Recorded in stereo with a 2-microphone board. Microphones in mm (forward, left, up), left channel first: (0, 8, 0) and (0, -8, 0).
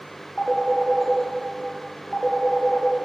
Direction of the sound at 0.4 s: 60° left (ahead or behind).